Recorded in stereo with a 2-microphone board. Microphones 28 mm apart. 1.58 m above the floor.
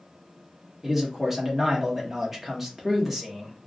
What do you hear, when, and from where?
0.8 s a man speaking: 10° right (ahead or behind), 1.0 m